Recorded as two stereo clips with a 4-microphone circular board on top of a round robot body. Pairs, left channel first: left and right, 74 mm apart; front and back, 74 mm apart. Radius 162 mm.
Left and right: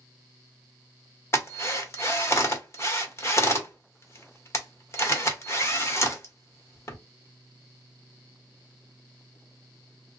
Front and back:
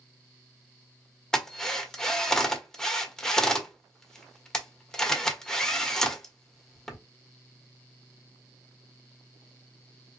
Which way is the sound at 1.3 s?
75° left.